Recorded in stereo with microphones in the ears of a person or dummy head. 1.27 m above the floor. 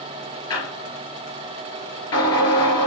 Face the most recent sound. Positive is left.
turn(degrees=25)  # may be behind; listen again after turning